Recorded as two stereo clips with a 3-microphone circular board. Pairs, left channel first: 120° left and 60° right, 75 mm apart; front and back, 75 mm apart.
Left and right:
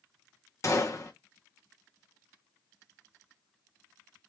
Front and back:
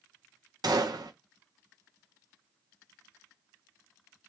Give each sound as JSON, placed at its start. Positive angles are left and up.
{"t": 0.6, "sound": "a gunshot", "azimuth_deg": 165, "distance_m": 1.2}